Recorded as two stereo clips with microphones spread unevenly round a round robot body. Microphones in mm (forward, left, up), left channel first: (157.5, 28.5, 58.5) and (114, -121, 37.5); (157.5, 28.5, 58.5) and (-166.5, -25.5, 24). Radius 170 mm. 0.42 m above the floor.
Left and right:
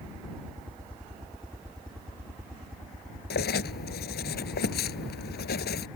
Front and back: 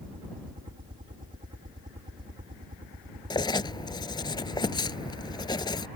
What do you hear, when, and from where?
0.0 s a helicopter: 175° left
3.3 s writing: 85° left